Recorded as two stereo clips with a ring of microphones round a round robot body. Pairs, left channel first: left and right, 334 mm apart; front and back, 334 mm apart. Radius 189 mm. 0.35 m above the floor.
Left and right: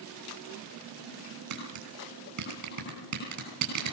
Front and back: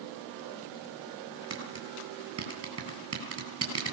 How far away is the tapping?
About 9.5 m.